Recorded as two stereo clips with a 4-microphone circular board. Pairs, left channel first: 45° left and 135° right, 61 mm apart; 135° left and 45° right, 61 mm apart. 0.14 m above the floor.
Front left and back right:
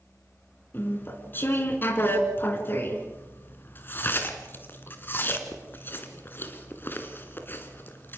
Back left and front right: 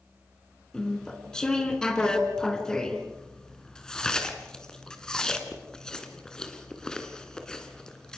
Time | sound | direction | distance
0.7 | chewing | 65° left | 2.0 m